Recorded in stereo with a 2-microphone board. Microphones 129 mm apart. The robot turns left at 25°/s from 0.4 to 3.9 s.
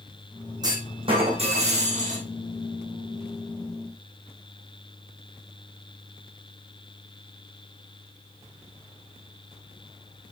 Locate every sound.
0.6 s a clunk: 30° right, 4.5 m; by 2.3 s 70° right, 4.5 m